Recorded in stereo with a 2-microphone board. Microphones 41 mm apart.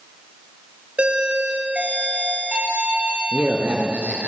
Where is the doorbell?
30° right (ahead or behind), 4 m.